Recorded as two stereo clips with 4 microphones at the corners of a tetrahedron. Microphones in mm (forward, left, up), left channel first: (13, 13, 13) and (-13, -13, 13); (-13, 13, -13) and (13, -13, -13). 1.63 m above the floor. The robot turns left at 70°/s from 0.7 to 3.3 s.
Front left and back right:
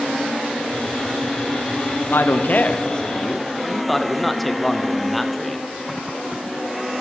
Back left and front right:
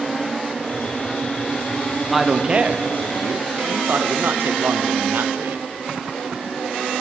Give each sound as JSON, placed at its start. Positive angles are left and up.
{"t": 2.1, "sound": "a man speaking", "azimuth_deg": 40, "distance_m": 0.8}